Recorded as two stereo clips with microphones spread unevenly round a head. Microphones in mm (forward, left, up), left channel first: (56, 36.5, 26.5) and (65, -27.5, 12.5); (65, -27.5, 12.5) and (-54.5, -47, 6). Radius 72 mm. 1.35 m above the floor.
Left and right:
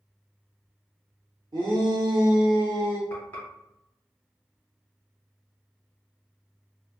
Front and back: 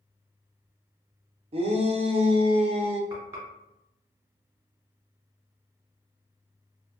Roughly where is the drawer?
No drawer in this recording.